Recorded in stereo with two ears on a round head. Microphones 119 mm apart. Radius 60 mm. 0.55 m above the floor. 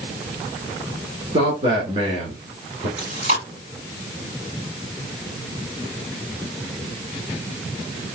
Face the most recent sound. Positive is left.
turn(degrees=-65)  # may be behind; listen again after turning